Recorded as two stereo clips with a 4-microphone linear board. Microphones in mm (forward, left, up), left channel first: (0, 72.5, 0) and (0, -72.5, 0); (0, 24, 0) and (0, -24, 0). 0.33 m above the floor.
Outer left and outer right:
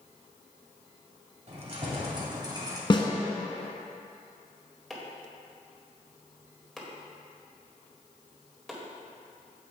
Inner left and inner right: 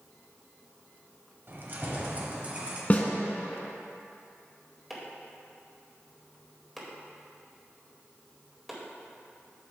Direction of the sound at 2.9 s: 35° left (ahead or behind).